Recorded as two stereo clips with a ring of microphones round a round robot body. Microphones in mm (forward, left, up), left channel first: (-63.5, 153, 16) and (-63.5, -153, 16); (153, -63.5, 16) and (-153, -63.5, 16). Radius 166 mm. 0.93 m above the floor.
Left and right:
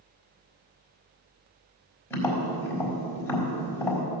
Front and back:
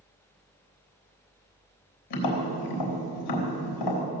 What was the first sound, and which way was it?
Tapping, 5° left.